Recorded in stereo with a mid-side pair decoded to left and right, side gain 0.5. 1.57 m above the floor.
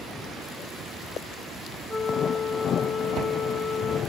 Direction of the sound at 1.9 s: 35° left.